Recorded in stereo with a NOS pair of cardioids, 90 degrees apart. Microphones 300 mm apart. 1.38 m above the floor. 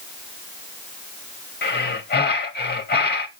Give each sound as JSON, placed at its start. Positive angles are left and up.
{"t": 1.6, "sound": "breathing", "azimuth_deg": 35, "distance_m": 3.0}